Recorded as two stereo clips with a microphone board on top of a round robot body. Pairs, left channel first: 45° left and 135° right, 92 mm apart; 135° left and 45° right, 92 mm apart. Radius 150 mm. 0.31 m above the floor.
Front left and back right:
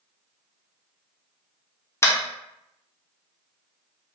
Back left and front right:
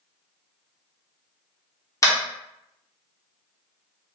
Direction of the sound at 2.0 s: 95° left.